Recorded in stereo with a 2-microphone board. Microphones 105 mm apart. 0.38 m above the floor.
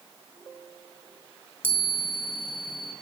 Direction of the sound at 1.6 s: 15° right (ahead or behind).